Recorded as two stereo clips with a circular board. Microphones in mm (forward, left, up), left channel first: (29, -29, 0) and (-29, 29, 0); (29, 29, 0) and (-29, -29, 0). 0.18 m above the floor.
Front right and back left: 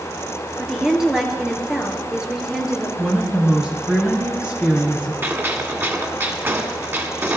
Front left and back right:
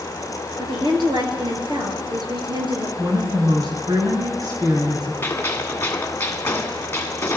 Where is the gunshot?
90° left, 1.5 m.